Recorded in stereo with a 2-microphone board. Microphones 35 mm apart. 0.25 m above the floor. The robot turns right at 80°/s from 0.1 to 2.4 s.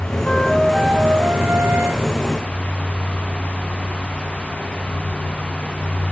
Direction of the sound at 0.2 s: 150° left.